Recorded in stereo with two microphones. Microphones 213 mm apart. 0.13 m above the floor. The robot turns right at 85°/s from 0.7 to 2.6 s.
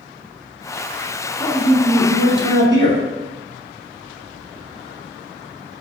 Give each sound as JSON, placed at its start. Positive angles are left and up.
{"t": 1.4, "sound": "a man speaking", "side_deg": 5, "distance_m": 1.3}